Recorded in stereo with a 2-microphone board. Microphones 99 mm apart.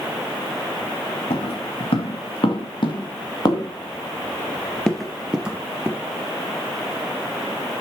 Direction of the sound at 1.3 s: 75° left (ahead or behind).